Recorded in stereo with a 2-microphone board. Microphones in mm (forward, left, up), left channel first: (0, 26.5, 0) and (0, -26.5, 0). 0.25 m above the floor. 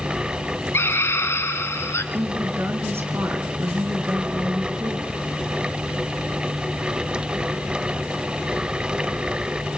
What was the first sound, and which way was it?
A scream, 50° left (ahead or behind).